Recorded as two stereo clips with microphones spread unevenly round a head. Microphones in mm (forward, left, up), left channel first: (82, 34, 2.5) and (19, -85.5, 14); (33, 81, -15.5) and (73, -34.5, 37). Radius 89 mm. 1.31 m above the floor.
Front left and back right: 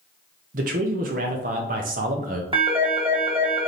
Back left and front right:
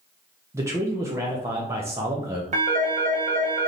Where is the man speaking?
155° right, 0.7 m.